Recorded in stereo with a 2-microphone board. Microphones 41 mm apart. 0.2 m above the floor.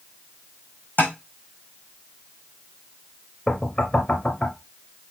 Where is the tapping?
45° left (ahead or behind), 4 m.